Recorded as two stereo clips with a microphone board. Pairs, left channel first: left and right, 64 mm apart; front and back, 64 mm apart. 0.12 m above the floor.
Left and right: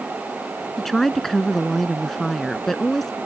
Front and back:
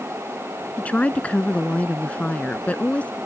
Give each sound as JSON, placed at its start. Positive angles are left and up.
{"t": 0.8, "sound": "a woman speaking", "azimuth_deg": 10}